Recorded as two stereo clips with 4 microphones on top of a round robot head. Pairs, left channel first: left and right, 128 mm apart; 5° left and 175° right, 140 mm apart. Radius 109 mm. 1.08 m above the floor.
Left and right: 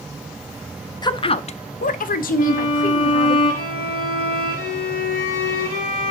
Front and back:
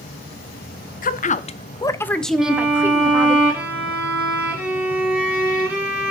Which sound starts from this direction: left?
A violin, at 2.4 s.